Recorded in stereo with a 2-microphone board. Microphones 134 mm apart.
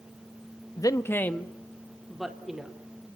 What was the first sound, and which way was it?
A man speaking, 25° left (ahead or behind).